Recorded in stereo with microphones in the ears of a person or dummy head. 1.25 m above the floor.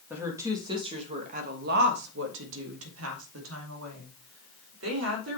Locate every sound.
0.1 s a woman speaking: 10° right (ahead or behind), 1.5 m; by 5.4 s 70° right (ahead or behind), 3.5 m